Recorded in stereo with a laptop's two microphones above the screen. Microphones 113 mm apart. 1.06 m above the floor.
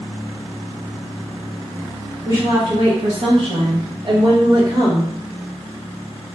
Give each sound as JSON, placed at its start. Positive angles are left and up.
{"t": 2.2, "sound": "a woman speaking", "side_deg": -30, "distance_m": 0.7}